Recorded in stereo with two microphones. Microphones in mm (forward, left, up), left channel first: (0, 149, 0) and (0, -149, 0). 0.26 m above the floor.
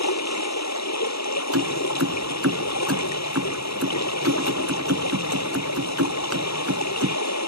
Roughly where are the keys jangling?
Right.